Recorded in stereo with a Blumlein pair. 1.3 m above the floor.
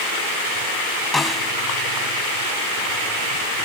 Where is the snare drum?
10° left.